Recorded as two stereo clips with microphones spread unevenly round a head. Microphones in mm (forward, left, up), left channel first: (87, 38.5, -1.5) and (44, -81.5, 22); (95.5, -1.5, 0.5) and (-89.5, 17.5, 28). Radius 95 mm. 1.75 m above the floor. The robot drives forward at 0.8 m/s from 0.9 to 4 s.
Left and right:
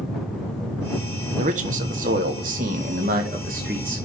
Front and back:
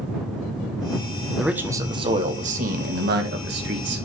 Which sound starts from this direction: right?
A man speaking, at 1.4 s.